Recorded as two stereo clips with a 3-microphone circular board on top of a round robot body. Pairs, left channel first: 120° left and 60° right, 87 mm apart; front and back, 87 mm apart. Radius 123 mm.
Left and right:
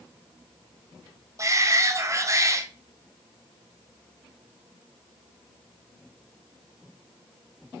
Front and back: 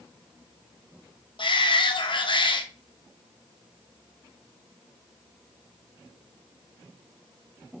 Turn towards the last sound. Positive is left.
turn(degrees=-10)